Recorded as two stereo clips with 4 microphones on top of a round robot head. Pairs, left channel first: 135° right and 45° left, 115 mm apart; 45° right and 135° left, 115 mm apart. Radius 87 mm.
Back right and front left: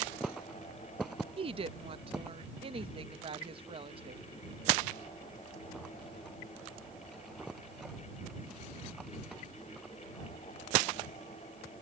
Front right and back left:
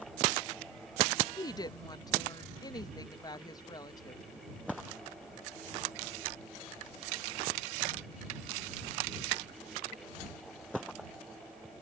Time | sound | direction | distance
1.4 | a woman speaking | 10° left | ?